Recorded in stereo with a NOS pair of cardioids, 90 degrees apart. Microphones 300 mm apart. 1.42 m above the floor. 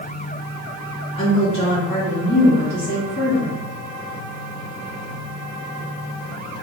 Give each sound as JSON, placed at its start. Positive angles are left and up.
{"t": 1.1, "sound": "a woman speaking", "azimuth_deg": 65, "distance_m": 1.6}